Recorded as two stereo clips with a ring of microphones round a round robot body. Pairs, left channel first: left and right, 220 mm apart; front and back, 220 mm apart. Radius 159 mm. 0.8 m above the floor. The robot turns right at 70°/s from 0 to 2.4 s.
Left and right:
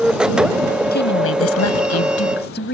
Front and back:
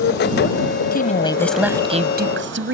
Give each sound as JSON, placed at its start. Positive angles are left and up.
{"t": 0.9, "sound": "a woman speaking", "azimuth_deg": 45}